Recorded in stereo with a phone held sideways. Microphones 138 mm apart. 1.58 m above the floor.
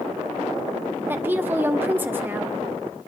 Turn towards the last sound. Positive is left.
turn(degrees=-15)  # may be behind; listen again after turning